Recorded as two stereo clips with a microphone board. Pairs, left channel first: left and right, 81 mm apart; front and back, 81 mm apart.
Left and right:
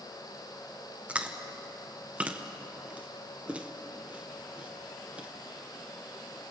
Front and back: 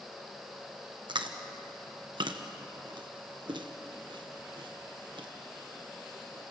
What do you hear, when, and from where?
1.1 s chewing: 165° right, 1.4 m